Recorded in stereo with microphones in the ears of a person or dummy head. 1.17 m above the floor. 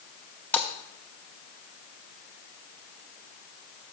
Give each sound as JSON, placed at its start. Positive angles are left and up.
{"t": 0.5, "sound": "a splash", "side_deg": 5, "distance_m": 0.6}